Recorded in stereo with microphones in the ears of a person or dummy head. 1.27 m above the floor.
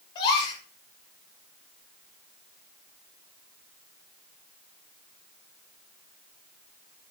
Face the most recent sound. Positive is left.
turn(degrees=25)  # may be behind; listen again after turning